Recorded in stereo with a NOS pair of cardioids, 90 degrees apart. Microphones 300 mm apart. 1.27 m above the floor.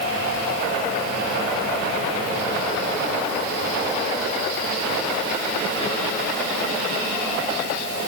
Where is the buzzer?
No buzzer in this recording.